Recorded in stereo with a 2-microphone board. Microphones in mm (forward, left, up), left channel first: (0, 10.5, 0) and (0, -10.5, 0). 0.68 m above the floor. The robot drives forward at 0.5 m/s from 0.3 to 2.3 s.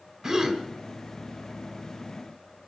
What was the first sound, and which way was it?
A gasp, 30° right (ahead or behind).